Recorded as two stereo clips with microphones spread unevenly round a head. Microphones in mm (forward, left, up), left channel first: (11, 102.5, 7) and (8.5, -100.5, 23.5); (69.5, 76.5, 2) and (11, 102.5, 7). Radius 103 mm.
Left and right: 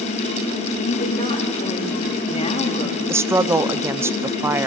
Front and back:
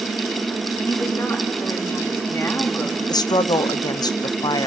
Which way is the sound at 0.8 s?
25° left.